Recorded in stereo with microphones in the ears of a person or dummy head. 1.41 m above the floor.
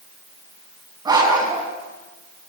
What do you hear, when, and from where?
1.1 s a dog barking: 25° right (ahead or behind), 5 m